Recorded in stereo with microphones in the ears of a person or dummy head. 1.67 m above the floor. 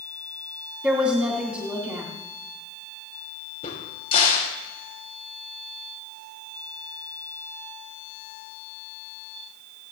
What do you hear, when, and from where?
0.8 s a woman speaking: 10° right (ahead or behind), 2.5 m
3.6 s a crack: 45° left (ahead or behind), 3.5 m